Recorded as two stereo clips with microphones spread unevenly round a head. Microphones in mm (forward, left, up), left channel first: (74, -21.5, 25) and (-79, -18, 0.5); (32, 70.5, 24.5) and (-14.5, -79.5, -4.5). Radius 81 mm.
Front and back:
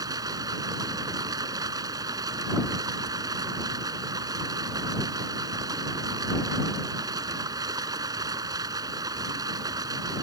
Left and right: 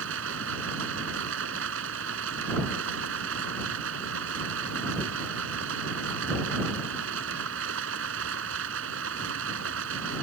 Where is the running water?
110° right.